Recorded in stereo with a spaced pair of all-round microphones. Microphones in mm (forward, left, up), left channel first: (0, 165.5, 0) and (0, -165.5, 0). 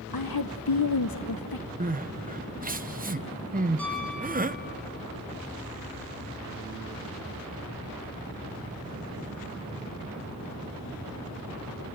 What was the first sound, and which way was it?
A woman speaking, 75° left (ahead or behind).